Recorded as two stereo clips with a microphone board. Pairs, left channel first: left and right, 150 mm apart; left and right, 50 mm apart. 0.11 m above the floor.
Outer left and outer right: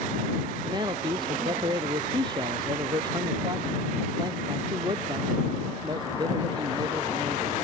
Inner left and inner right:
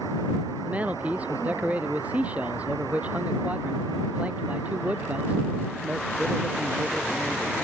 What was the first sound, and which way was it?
A man speaking, 30° right (ahead or behind).